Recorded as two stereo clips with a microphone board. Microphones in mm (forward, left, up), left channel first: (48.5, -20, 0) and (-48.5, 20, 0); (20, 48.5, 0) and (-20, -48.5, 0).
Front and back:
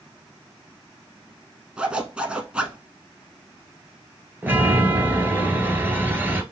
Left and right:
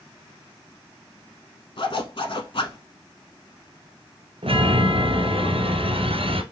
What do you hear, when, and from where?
1.8 s a zipper: 80° left, 1.0 m
4.4 s a chime: 130° right, 0.9 m